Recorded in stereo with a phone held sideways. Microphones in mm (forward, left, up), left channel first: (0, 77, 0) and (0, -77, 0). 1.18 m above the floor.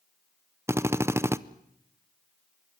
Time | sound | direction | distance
0.7 | a drill | 15° right (ahead or behind) | 0.6 m